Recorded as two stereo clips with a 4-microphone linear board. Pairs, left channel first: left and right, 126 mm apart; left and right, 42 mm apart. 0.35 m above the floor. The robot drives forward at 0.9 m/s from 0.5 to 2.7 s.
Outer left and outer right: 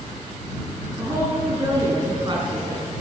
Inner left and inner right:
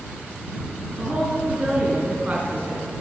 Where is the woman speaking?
25° right (ahead or behind), 4 m; by 2.9 s 40° right (ahead or behind), 3 m.